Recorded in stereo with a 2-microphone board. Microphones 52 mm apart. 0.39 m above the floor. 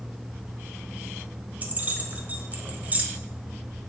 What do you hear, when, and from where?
1.6 s keys jangling: 30° right (ahead or behind), 1.2 m